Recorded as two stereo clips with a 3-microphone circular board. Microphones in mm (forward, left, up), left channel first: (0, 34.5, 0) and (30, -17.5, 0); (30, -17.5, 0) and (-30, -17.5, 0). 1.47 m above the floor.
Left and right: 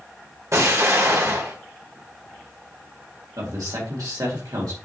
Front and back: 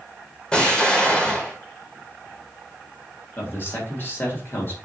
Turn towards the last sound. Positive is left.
turn(degrees=-50)